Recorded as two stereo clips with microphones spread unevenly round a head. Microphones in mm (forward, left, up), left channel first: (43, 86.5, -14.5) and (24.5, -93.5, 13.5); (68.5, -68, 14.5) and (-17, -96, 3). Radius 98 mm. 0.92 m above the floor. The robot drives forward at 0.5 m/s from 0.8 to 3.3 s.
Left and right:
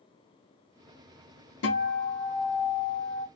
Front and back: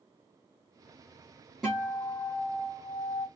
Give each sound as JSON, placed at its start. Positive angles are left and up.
{"t": 1.6, "sound": "a guitar", "azimuth_deg": 105, "distance_m": 1.3}